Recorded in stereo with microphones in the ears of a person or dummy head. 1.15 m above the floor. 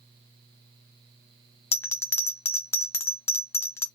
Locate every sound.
1.7 s a bell: 20° left (ahead or behind), 0.5 m